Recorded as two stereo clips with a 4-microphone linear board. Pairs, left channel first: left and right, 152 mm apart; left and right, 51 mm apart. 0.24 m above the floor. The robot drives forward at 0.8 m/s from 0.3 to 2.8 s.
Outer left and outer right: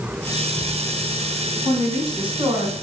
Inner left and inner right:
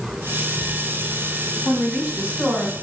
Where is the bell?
I don't hear a bell.